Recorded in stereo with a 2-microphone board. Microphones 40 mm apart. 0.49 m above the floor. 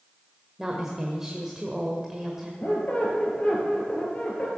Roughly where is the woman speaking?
Centre.